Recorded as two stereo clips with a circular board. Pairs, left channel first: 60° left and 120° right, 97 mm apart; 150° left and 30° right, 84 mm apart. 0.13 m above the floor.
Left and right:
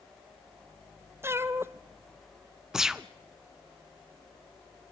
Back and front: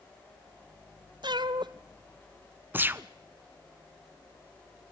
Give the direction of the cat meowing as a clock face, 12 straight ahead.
2 o'clock.